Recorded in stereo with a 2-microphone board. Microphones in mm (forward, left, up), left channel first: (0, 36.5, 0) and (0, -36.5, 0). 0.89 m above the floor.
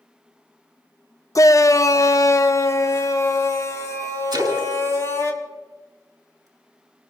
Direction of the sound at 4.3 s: 60° right (ahead or behind).